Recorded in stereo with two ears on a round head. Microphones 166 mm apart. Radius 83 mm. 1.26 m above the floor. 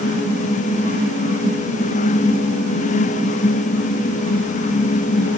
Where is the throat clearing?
I don't hear throat clearing.